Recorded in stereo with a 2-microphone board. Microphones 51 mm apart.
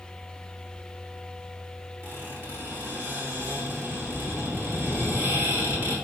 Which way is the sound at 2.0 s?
60° right (ahead or behind).